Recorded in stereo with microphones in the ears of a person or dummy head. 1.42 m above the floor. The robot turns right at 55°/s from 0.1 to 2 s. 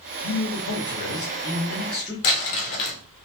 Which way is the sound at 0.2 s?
90° left.